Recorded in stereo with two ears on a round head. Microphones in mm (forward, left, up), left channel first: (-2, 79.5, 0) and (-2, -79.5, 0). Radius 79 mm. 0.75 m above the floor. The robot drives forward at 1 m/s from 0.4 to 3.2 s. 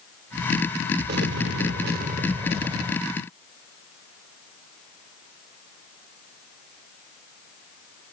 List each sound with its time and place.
1.1 s an explosion: 60° right (ahead or behind); by 3.0 s 25° right (ahead or behind)